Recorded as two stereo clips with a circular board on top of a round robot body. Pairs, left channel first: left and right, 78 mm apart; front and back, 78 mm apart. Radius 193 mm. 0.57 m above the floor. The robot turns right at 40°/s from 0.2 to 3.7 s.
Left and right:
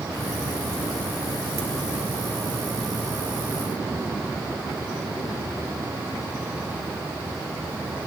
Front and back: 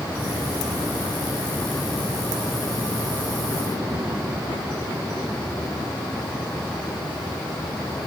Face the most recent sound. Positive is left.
No sound to turn to.